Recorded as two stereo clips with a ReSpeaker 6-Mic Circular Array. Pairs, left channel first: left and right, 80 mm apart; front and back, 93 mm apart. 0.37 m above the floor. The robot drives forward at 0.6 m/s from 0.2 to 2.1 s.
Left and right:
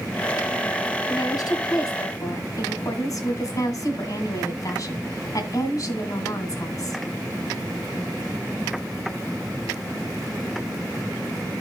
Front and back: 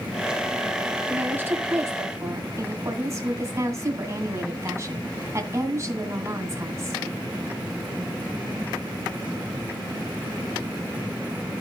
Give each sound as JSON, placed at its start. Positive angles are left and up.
{"t": 1.1, "sound": "a woman speaking", "azimuth_deg": 110, "distance_m": 2.0}